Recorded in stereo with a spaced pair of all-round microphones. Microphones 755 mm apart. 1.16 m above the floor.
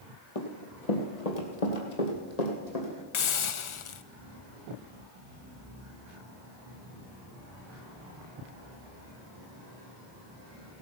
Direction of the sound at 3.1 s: 45° left (ahead or behind).